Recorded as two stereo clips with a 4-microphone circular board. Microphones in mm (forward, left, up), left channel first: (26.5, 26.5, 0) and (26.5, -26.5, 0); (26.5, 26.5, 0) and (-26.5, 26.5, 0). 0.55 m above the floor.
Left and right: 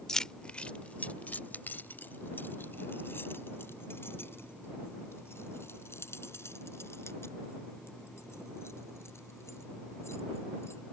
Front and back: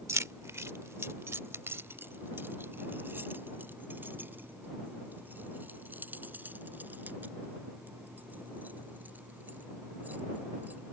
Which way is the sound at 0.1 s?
170° left.